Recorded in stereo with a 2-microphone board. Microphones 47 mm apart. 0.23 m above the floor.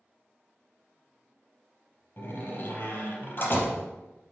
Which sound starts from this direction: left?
A door slam, at 2.2 s.